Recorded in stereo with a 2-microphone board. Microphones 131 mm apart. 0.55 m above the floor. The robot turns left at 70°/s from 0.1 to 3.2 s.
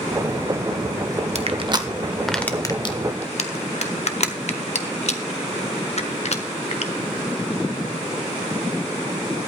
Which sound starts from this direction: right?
Crushing, at 1.4 s.